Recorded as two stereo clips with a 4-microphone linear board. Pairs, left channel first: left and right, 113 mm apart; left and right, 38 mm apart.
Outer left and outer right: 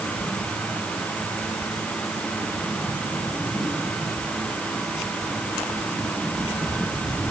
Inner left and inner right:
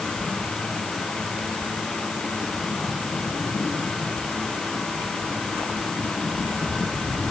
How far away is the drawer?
I don't hear a drawer.